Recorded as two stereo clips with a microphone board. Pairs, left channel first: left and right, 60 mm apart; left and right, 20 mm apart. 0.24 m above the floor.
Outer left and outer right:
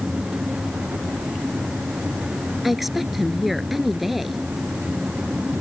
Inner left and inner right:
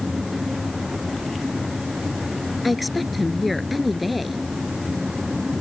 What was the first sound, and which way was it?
A woman speaking, centre (ahead or behind).